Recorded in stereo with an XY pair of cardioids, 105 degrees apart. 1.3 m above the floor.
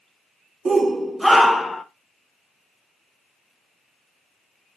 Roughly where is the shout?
Ahead right.